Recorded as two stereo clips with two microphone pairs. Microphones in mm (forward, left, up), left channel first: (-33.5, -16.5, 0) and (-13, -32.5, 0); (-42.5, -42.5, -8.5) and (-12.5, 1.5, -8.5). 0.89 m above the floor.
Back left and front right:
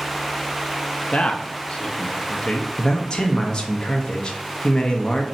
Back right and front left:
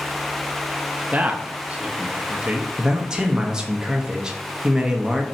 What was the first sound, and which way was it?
A man speaking, 115° left.